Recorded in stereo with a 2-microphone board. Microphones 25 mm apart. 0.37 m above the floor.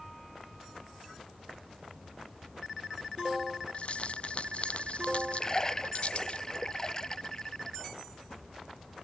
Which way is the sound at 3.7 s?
50° left (ahead or behind).